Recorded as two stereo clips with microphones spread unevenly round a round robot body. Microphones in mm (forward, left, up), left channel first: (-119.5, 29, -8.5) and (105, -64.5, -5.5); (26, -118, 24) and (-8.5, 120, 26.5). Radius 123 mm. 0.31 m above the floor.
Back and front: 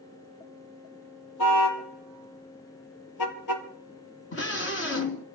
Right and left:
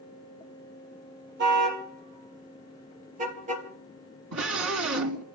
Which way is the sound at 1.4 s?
145° left.